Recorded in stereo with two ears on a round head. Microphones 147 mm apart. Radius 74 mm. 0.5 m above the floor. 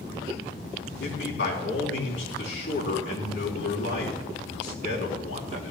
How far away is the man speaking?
About 3.5 m.